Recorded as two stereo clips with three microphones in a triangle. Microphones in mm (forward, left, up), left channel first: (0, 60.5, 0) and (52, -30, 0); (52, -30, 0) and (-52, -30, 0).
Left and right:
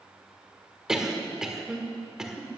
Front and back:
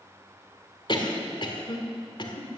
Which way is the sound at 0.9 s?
25° left.